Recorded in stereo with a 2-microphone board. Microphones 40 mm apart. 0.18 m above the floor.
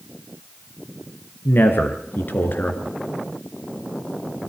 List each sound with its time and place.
1.4 s a man speaking: 60° left (ahead or behind), 3 m